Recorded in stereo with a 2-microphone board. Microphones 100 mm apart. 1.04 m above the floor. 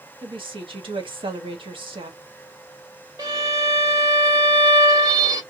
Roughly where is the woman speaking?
Right.